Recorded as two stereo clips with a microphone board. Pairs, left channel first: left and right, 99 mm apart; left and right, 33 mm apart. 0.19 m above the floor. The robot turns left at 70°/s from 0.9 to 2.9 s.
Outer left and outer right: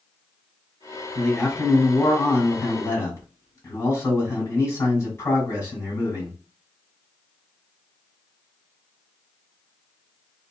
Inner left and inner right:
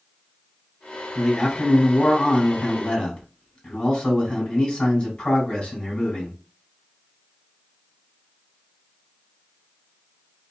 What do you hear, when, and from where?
1.1 s a man speaking: 175° right, 1.8 m; by 6.3 s 65° left, 1.8 m